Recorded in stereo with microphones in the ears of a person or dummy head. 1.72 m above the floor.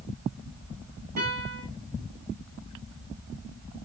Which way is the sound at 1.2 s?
50° right (ahead or behind).